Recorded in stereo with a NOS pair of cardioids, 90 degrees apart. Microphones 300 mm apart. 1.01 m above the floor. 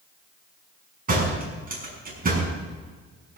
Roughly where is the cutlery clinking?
No cutlery clinking in this recording.